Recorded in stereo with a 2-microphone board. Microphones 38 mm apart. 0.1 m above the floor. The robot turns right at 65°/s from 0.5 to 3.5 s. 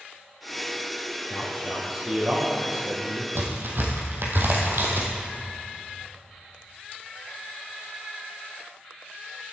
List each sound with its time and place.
1.3 s a man speaking: 140° left, 2.5 m; by 3.2 s 95° right, 2.5 m
3.4 s a crack: 70° right (ahead or behind), 1.8 m; by 5.1 s 65° right (ahead or behind), 1.8 m